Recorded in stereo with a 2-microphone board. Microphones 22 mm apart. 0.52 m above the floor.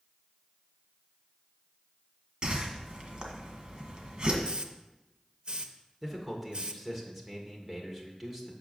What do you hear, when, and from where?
2.4 s a whoosh: 35° right (ahead or behind), 1.6 m
4.4 s a hiss: 45° right (ahead or behind), 0.5 m
6.0 s a man speaking: 5° right (ahead or behind), 1.9 m